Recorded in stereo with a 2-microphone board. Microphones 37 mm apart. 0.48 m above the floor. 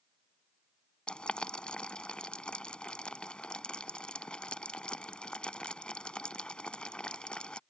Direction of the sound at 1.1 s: 30° left (ahead or behind).